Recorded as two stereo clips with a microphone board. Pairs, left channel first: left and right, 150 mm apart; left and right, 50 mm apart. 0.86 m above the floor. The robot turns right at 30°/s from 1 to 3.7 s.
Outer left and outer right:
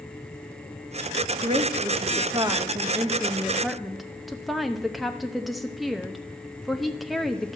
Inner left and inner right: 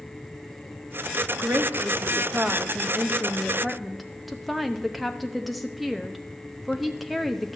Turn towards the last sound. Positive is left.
turn(degrees=0)